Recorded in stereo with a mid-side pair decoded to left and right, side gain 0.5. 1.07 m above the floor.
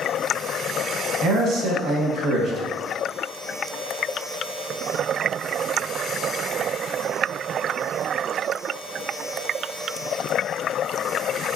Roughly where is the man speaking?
Ahead right.